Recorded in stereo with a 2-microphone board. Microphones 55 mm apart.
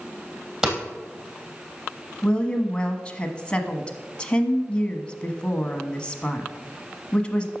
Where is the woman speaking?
20° left (ahead or behind), 1.1 m.